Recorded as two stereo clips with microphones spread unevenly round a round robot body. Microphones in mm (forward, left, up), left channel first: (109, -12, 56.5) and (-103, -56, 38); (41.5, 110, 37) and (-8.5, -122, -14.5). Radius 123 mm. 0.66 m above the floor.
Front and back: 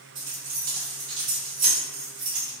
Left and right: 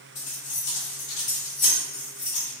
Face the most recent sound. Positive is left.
turn(degrees=140)